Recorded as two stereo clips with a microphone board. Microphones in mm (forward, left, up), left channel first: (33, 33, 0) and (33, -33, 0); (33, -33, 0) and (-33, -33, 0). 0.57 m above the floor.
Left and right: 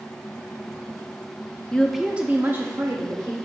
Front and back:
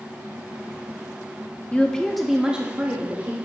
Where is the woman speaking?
35° left, 0.7 m; by 3.3 s 120° right, 1.3 m.